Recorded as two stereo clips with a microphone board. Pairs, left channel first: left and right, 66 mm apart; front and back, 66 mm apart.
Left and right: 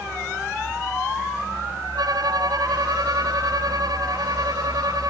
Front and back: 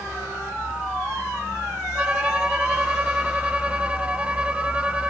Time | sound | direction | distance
1.9 | a violin | 110° right | ?